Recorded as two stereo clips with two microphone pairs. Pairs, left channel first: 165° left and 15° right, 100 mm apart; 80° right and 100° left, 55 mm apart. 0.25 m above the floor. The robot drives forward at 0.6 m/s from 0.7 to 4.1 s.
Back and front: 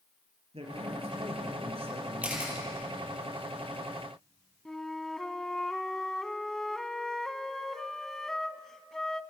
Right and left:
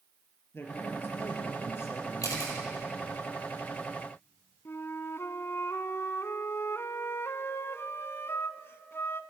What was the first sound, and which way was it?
A man speaking, 35° right.